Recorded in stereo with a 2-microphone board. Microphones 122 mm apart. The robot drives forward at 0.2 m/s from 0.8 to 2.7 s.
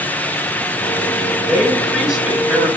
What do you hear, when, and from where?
1.4 s a man speaking: 5° right (ahead or behind), 6.5 m